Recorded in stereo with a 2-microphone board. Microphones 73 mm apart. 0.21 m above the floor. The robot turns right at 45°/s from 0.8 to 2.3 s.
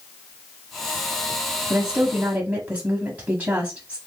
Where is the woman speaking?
10° right (ahead or behind), 1.0 m; by 4.0 s 20° right (ahead or behind), 1.0 m.